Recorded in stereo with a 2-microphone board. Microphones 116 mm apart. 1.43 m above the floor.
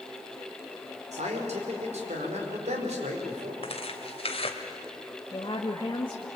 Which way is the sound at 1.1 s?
80° right.